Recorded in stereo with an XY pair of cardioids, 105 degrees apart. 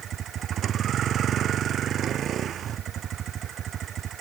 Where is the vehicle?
60° right.